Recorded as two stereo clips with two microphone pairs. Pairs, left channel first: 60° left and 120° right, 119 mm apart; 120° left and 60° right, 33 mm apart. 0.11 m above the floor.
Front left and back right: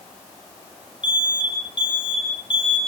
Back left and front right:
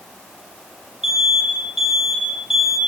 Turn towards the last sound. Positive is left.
turn(degrees=15)